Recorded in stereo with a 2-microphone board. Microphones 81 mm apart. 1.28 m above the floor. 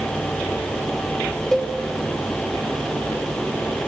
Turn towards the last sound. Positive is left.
turn(degrees=5)  # may be behind; listen again after turning